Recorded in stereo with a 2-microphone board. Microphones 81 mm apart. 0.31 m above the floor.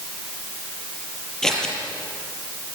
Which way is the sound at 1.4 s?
10° left (ahead or behind).